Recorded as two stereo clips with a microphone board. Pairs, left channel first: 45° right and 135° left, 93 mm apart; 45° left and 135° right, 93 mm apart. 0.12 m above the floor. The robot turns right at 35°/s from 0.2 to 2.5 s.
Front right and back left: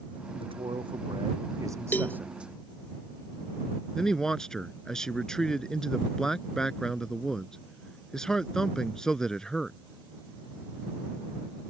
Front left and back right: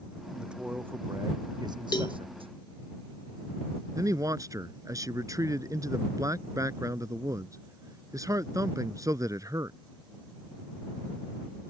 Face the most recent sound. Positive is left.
turn(degrees=-125)